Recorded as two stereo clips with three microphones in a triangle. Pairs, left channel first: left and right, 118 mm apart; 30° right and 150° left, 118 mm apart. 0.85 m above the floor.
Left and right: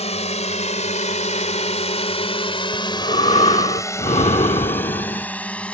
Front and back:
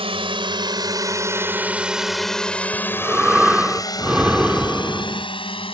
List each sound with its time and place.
0.0 s a drone: 115° left; by 5.7 s 10° left
2.7 s breathing: 70° left